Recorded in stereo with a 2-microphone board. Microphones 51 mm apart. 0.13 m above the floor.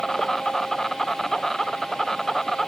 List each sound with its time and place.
0.0 s an insect: 10° left (ahead or behind)